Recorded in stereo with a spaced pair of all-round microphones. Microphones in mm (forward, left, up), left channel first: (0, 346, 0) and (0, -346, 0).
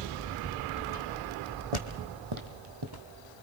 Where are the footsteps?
50° right (ahead or behind), 2.5 m; by 3.1 s 30° right (ahead or behind), 1.6 m.